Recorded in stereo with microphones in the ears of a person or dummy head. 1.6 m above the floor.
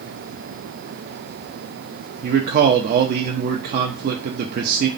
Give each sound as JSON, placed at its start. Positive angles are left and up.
{"t": 2.2, "sound": "a man speaking", "side_deg": -55, "distance_m": 0.6}